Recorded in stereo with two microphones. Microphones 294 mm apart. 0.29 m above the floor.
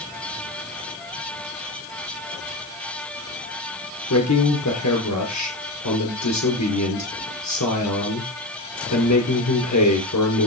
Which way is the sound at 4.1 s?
70° left (ahead or behind).